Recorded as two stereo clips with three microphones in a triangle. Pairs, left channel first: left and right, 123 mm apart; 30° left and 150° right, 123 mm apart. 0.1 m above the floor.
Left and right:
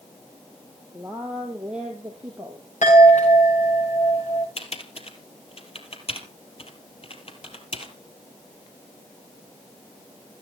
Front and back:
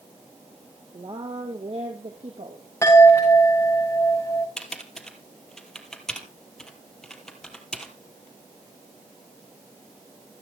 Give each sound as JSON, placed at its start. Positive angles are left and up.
{"t": 0.9, "sound": "a woman speaking", "azimuth_deg": 180, "distance_m": 2.0}
{"t": 2.8, "sound": "a chime", "azimuth_deg": 100, "distance_m": 8.5}
{"t": 4.6, "sound": "typing on a keyboard", "azimuth_deg": 115, "distance_m": 2.5}